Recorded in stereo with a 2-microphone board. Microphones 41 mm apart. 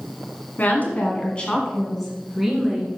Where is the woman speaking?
45° left (ahead or behind), 1.8 m; by 2.9 s 15° right (ahead or behind), 2 m.